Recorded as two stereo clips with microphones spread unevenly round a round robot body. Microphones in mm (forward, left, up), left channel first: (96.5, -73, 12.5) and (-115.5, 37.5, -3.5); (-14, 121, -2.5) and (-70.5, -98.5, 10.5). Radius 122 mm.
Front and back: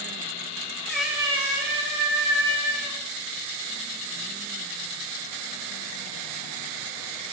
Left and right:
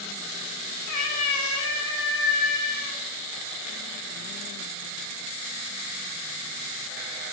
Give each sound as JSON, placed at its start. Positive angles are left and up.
{"t": 0.9, "sound": "a cat meowing", "azimuth_deg": 55, "distance_m": 0.7}